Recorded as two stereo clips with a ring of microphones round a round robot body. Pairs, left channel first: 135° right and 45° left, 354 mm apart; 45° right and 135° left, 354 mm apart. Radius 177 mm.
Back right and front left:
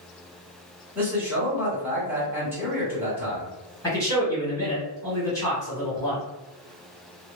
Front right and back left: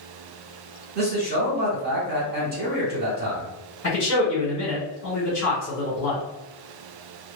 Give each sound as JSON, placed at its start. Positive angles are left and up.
{"t": 0.9, "sound": "a man speaking", "azimuth_deg": 120, "distance_m": 1.2}
{"t": 3.8, "sound": "a man speaking", "azimuth_deg": -60, "distance_m": 1.7}